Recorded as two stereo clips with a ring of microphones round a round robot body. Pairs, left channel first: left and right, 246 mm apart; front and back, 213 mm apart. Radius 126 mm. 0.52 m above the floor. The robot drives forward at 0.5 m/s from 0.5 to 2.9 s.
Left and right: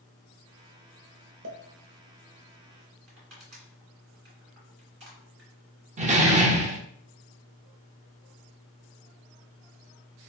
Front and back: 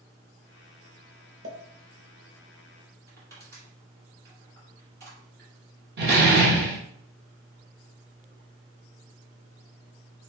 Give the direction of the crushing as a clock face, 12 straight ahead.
4 o'clock.